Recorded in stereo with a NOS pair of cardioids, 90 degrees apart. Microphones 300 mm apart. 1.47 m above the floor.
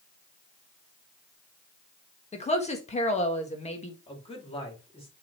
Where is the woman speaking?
25° left, 1.6 m.